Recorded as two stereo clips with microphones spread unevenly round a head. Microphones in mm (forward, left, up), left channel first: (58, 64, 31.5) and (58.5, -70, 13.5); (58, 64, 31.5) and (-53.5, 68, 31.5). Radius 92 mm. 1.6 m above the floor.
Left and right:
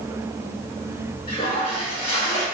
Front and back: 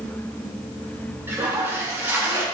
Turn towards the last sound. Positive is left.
turn(degrees=115)